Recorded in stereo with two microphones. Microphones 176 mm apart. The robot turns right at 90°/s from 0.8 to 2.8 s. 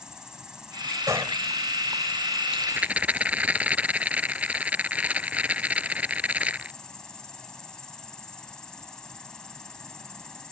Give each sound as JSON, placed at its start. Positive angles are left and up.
{"t": 0.0, "sound": "an insect", "azimuth_deg": -175}
{"t": 1.1, "sound": "a gunshot", "side_deg": -20}
{"t": 2.5, "sound": "a rattle", "side_deg": -35}